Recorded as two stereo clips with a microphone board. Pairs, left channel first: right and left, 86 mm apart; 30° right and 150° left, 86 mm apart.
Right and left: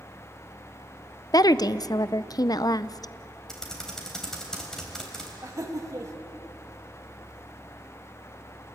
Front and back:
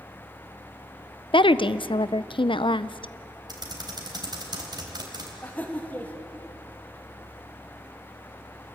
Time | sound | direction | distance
1.3 | a woman speaking | 50° right | 0.5 m
3.5 | typing on a keyboard | 175° right | 3.5 m
5.4 | laughter | 40° left | 2.5 m